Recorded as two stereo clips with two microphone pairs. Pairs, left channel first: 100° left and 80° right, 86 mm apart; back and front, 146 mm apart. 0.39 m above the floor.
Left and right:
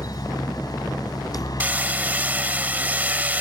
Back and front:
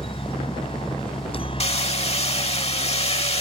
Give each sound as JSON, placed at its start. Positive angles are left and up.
{"t": 0.0, "sound": "a helicopter", "azimuth_deg": 135}
{"t": 1.6, "sound": "hammering", "azimuth_deg": -150}